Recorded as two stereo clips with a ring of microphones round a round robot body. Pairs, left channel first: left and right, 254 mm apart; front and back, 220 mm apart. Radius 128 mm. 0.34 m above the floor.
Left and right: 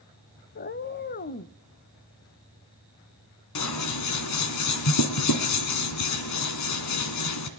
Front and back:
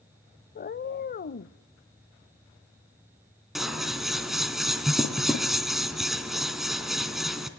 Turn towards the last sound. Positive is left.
turn(degrees=90)